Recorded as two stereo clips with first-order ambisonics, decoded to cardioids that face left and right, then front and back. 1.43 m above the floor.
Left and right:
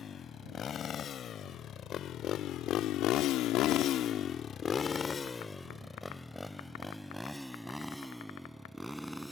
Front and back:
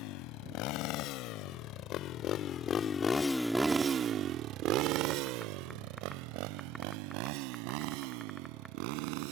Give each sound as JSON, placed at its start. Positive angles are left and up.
{"t": 0.0, "sound": "a motorcycle", "azimuth_deg": 25}